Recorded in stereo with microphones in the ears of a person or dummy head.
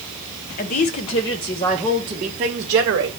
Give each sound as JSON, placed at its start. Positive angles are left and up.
{"t": 0.6, "sound": "a woman speaking", "side_deg": 40, "distance_m": 0.9}